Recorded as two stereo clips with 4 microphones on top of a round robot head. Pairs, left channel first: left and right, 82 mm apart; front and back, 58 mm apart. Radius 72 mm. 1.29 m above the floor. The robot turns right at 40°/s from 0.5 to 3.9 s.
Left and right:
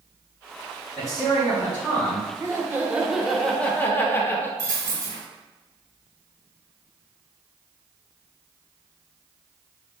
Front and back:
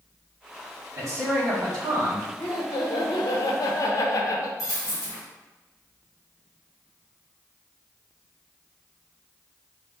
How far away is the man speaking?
About 1.7 m.